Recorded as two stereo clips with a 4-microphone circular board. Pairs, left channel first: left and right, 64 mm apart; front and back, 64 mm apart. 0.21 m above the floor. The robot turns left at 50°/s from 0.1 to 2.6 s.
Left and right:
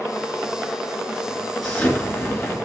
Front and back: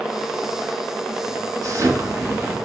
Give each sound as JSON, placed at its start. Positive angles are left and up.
{"t": 1.6, "sound": "an explosion", "azimuth_deg": 170, "distance_m": 3.0}